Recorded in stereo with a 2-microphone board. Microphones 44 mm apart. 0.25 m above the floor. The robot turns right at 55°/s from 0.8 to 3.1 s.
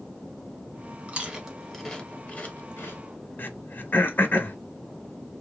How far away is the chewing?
About 0.8 m.